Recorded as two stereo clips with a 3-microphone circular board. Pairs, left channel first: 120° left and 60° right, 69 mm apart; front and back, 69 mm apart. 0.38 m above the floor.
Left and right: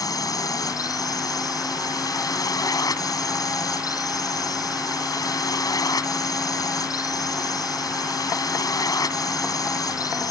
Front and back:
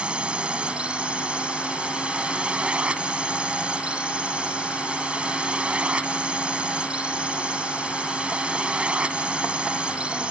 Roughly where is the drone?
Left.